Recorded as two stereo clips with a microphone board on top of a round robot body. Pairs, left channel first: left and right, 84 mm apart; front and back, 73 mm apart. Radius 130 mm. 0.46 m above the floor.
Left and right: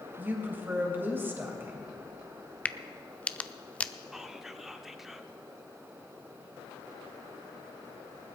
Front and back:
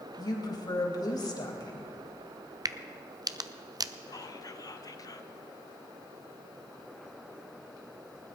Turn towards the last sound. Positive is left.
turn(degrees=-5)